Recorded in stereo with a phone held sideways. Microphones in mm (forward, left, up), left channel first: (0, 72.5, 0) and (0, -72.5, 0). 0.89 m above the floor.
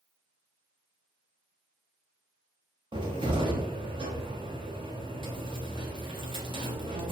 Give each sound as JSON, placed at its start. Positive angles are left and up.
{"t": 2.9, "sound": "a cupboard door", "side_deg": -35, "distance_m": 0.5}